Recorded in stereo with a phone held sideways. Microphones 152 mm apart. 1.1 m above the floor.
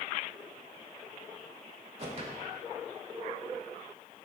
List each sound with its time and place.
2.0 s a whoosh: 45° right (ahead or behind), 1.2 m